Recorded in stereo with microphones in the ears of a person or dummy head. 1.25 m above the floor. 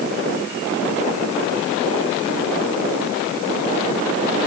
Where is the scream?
No scream in this recording.